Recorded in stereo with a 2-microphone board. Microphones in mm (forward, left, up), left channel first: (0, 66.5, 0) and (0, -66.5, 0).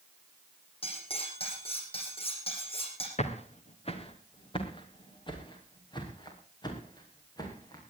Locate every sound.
0.8 s cutlery clinking: 45° left (ahead or behind), 6.5 m
3.2 s footsteps: 55° left (ahead or behind), 3 m; by 7.8 s 30° left (ahead or behind), 7.5 m